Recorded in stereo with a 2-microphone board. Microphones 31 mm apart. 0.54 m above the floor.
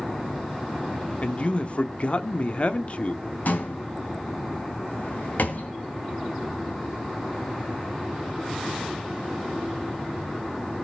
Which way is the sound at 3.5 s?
60° left (ahead or behind).